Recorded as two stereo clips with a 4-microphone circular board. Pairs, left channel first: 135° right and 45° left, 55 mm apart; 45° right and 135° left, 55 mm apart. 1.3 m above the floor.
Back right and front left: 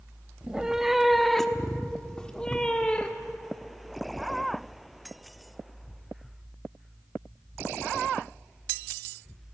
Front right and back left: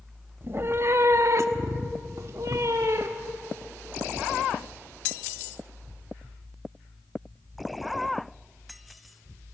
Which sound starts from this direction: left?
A cat meowing, at 0.4 s.